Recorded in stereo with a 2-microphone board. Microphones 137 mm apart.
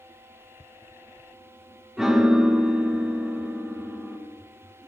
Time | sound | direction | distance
2.0 | a piano | 5° right (ahead or behind) | 2 m